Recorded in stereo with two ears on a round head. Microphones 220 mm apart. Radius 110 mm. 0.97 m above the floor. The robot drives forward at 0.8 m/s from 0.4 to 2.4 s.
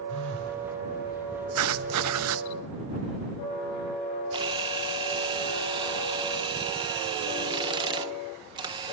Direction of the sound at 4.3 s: 20° right (ahead or behind).